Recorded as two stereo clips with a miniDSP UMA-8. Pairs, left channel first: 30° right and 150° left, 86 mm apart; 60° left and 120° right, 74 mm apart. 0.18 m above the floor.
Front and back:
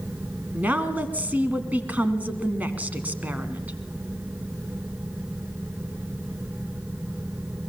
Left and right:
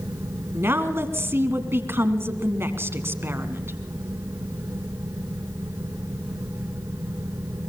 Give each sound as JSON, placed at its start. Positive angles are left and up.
{"t": 0.5, "sound": "a woman speaking", "azimuth_deg": -150, "distance_m": 1.8}